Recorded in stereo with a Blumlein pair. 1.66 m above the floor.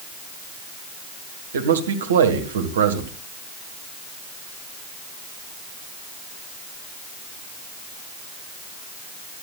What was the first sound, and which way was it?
A man speaking, 65° right.